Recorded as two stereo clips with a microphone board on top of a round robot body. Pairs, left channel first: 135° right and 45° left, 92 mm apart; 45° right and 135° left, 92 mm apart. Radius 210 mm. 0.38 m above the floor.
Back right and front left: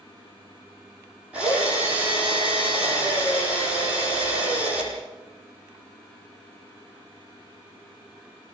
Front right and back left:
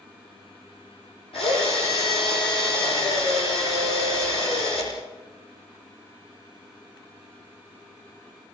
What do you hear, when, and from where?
1.3 s a drill: 30° right, 9 m